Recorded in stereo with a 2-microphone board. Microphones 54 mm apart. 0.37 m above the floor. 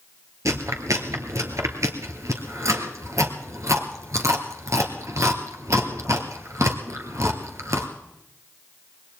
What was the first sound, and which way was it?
Chewing, 70° right (ahead or behind).